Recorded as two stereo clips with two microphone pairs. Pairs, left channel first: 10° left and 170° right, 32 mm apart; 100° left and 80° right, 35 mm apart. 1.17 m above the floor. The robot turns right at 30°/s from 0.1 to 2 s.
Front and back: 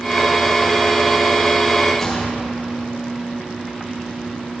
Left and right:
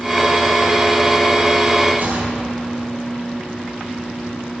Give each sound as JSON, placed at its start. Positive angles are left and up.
{"t": 2.0, "sound": "a gunshot", "azimuth_deg": -70, "distance_m": 3.0}